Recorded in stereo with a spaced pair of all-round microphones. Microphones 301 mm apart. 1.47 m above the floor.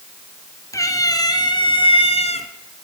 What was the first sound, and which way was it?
A cat meowing, 10° left (ahead or behind).